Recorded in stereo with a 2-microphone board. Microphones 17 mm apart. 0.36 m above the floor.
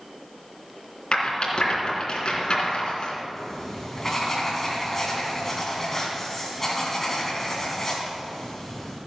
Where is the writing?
20° left (ahead or behind), 3.5 m.